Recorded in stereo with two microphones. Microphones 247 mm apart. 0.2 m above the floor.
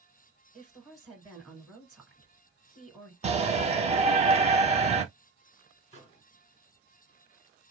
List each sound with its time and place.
0.5 s a woman speaking: centre (ahead or behind), 1.9 m
3.2 s a shout: 25° right (ahead or behind), 1.0 m
5.9 s a microwave: 25° left (ahead or behind), 1.6 m